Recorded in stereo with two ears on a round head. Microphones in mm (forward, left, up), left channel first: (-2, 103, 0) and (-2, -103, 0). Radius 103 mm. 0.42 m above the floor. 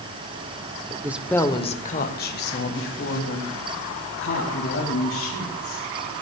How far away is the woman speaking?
About 0.8 m.